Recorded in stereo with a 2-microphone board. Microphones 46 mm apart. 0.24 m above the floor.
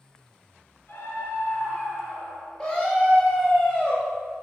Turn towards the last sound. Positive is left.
turn(degrees=25)  # may be behind; listen again after turning